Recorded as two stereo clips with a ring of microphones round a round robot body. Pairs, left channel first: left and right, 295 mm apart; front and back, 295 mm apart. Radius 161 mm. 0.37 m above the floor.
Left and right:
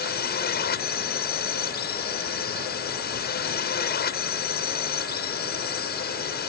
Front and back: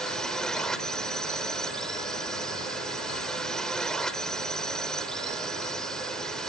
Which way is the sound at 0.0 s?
85° left.